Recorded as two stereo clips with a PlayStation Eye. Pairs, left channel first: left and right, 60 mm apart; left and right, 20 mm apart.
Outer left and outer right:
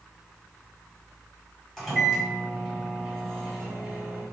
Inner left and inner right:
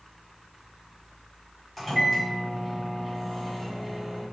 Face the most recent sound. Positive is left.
turn(degrees=10)  # may be behind; listen again after turning